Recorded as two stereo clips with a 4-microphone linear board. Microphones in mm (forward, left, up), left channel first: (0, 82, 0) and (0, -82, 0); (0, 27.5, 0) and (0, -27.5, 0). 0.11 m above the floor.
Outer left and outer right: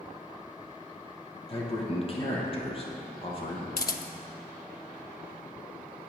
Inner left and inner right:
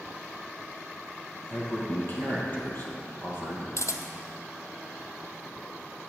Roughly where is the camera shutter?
Left.